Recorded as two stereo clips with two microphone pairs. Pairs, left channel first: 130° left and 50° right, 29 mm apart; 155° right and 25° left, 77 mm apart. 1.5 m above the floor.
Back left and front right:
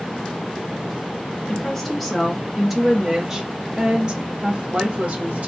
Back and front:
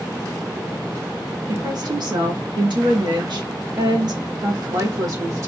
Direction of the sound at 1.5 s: 50° left.